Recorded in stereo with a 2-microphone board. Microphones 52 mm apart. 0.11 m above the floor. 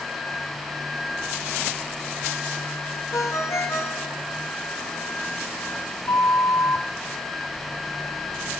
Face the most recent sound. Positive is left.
turn(degrees=70)  # may be behind; listen again after turning